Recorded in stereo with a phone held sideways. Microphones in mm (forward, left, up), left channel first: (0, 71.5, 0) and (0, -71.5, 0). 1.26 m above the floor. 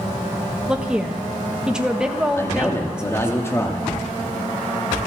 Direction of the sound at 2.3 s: 20° left (ahead or behind).